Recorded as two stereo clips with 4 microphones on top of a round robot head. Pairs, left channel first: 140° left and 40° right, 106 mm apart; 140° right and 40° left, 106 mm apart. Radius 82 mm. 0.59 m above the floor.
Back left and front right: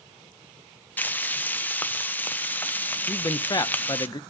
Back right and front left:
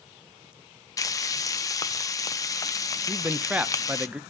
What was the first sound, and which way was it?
Frying, 160° right.